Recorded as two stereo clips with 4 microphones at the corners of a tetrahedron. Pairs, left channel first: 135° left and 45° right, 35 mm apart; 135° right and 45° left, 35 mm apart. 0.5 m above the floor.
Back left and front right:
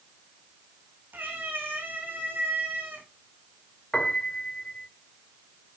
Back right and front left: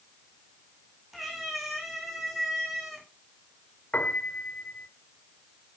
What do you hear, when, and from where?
1.1 s a cat meowing: 45° right, 4 m
3.9 s a piano: 160° right, 2 m